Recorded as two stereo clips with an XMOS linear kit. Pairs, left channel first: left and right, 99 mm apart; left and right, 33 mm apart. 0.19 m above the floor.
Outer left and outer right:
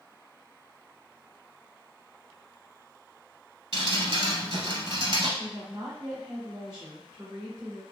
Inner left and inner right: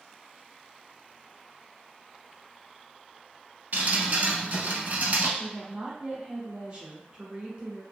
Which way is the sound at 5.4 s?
30° right (ahead or behind).